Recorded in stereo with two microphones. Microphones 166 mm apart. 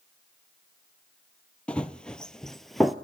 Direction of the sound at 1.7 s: 5° left (ahead or behind).